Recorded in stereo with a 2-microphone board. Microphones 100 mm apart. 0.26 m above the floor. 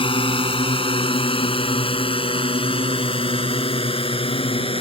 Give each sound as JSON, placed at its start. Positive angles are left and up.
{"t": 0.0, "sound": "a drone", "side_deg": 60}